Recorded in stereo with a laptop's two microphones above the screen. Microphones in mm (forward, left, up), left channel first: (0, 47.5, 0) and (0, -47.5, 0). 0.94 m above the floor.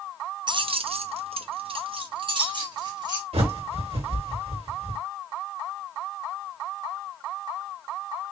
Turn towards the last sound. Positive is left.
turn(degrees=-80)